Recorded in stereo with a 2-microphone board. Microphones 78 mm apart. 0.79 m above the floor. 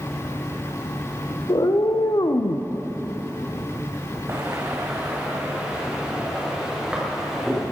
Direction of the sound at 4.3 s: 35° right (ahead or behind).